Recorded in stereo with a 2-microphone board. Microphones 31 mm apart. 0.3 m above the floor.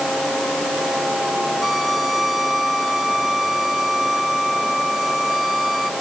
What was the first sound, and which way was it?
A violin, centre (ahead or behind).